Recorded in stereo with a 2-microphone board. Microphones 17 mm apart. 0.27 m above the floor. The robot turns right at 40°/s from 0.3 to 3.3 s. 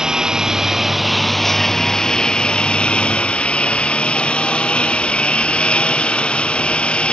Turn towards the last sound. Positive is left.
turn(degrees=90)